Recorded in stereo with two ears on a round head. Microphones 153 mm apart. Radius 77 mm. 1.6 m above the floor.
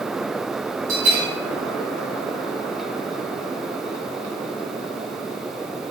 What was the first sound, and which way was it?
A bell, 50° right (ahead or behind).